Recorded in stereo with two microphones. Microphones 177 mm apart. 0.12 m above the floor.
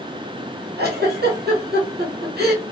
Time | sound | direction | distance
0.8 | a giggle | 75° right (ahead or behind) | 1.2 m